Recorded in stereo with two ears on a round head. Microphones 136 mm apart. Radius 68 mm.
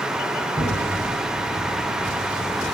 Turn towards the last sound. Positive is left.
turn(degrees=-15)  # may be behind; listen again after turning